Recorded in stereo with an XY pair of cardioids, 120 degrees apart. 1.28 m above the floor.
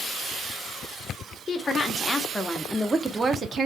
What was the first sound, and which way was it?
A woman speaking, 35° left.